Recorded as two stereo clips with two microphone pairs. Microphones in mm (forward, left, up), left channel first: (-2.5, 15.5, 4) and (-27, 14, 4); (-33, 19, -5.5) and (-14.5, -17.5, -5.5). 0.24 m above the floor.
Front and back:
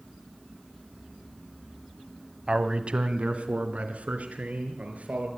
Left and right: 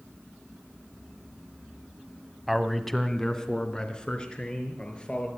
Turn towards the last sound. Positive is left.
turn(degrees=180)